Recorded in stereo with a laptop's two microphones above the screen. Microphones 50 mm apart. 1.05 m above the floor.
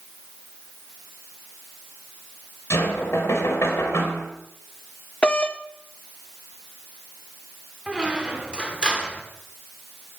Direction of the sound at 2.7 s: 65° left (ahead or behind).